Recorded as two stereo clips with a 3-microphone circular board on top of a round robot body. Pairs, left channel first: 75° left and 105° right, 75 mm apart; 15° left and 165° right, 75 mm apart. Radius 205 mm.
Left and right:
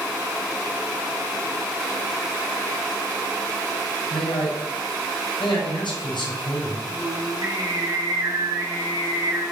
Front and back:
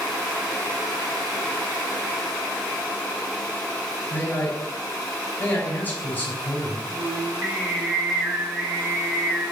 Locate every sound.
4.1 s a man speaking: 80° left, 4 m
6.9 s singing: 105° right, 3 m